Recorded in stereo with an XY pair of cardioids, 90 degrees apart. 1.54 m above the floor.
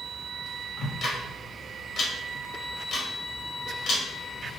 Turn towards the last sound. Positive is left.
turn(degrees=65)